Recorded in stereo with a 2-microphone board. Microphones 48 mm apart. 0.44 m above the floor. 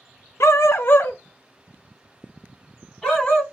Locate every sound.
0.4 s a dog barking: 70° left (ahead or behind), 0.7 m; by 3.4 s 10° left (ahead or behind), 1.8 m